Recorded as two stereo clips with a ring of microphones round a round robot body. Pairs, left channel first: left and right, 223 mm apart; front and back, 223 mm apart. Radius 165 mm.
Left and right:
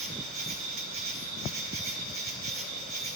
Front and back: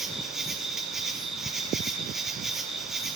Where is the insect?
90° right, 1.2 m.